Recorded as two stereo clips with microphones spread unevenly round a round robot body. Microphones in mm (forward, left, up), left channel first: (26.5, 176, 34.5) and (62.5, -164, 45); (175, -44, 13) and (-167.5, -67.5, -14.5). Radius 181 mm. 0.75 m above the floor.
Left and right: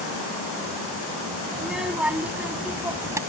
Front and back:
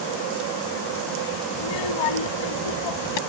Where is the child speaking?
5° left; by 3.2 s straight ahead.